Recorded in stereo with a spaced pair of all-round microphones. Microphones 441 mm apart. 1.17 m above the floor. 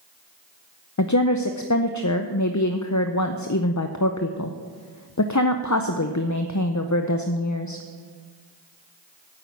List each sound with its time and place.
1.0 s a woman speaking: 40° left (ahead or behind), 0.6 m